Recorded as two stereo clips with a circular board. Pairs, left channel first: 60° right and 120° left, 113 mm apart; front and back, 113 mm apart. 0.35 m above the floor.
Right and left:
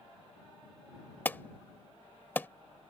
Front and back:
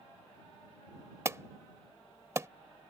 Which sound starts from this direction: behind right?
An alarm, at 1.2 s.